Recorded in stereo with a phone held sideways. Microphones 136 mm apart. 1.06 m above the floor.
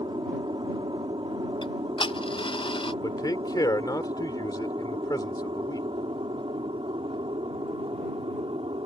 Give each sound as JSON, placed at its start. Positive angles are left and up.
{"t": 0.0, "sound": "an aircraft", "side_deg": -40}
{"t": 1.6, "sound": "ticking", "side_deg": 40}
{"t": 3.0, "sound": "a man speaking", "side_deg": 30}